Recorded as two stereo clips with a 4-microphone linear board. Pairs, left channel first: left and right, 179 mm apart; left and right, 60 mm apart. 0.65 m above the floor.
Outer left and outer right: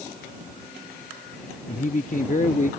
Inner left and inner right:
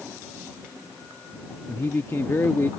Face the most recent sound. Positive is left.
turn(degrees=45)  # may be behind; listen again after turning